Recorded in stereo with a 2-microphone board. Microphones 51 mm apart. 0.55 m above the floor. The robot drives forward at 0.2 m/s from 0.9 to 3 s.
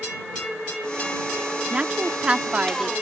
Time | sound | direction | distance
1.7 | a woman speaking | 25° right (ahead or behind) | ?